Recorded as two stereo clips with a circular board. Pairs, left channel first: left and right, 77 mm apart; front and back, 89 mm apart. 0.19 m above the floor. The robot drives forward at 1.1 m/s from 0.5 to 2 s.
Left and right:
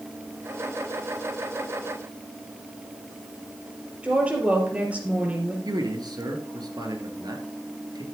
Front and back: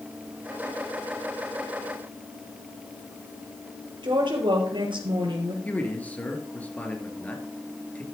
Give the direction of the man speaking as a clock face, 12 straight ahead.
2 o'clock.